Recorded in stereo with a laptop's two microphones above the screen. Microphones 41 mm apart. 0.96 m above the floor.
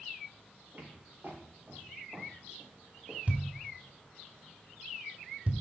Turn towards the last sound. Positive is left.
turn(degrees=-40)  # may be behind; listen again after turning